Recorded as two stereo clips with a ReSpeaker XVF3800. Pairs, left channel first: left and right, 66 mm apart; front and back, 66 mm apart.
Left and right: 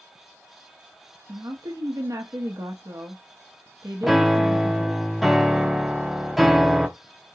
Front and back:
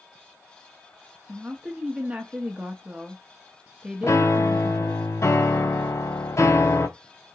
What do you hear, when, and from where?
1.3 s a woman speaking: 110° right, 0.7 m
4.0 s a piano: straight ahead, 0.7 m